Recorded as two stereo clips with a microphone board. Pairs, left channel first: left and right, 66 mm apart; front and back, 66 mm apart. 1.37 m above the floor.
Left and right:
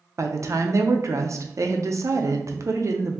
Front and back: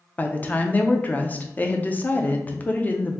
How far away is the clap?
I don't hear a clap.